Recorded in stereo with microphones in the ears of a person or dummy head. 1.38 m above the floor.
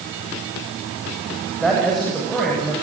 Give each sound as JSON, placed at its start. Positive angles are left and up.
{"t": 1.6, "sound": "a man speaking", "side_deg": 5, "distance_m": 8.5}